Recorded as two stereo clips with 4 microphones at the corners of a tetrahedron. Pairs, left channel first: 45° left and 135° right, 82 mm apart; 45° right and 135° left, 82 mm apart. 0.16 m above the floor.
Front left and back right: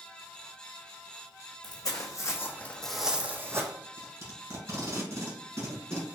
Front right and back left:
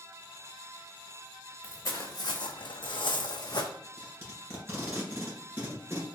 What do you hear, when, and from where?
1.6 s footsteps: 10° left, 0.9 m; by 3.7 s 85° right, 0.7 m
3.8 s tape being pulled: 170° right, 1.9 m